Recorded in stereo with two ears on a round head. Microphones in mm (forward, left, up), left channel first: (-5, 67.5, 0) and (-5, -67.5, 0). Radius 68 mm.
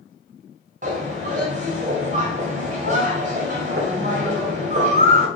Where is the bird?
50° right (ahead or behind), 1.9 m.